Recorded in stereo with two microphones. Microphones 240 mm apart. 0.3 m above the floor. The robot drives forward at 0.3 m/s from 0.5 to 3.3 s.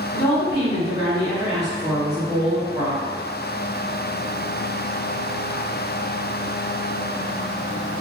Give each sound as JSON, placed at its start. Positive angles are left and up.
{"t": 0.1, "sound": "a woman speaking", "side_deg": 25, "distance_m": 1.5}